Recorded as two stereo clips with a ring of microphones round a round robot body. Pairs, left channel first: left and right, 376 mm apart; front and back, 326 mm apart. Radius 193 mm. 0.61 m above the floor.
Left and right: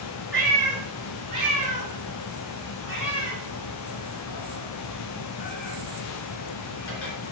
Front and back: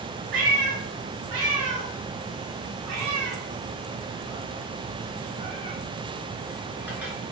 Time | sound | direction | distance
0.3 | a cat meowing | 175° left | 3 m